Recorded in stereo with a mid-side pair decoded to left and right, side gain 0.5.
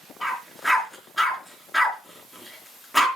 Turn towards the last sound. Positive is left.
turn(degrees=0)